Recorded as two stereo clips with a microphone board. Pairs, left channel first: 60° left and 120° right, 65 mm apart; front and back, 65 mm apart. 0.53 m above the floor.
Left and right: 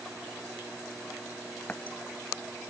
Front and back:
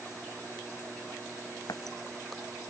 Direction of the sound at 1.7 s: 10° right.